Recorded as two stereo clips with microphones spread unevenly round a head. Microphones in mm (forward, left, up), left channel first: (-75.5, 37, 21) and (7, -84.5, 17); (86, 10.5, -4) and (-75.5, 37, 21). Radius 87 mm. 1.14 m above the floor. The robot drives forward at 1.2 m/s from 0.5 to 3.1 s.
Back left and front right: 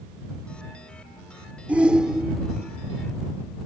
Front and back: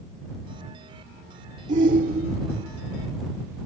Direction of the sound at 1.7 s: 135° right.